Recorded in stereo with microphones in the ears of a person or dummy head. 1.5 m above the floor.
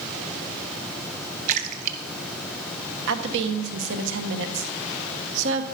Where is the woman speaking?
70° right (ahead or behind), 1.5 m.